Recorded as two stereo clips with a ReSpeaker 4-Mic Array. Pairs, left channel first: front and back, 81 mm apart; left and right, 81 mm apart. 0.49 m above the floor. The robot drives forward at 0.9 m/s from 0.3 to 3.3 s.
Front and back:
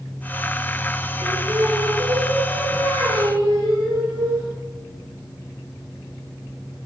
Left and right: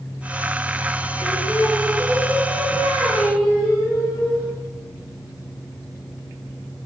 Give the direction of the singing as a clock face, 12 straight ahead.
7 o'clock.